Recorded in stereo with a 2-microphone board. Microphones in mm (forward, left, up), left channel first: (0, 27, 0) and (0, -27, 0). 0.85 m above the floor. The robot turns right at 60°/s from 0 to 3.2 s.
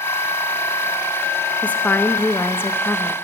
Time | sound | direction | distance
1.6 | a woman speaking | 35° left | 0.5 m